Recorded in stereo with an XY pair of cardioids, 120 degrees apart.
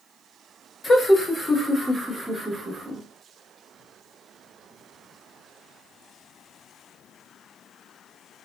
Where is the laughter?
25° left, 1.3 m; by 3.0 s 30° right, 1.5 m.